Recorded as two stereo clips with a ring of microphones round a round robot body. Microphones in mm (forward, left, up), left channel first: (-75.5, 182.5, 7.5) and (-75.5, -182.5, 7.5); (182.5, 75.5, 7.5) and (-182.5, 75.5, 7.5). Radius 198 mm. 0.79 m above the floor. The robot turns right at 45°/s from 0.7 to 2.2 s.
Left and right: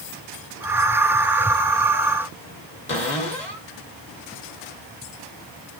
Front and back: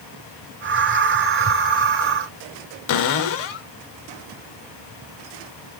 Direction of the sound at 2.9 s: 15° left.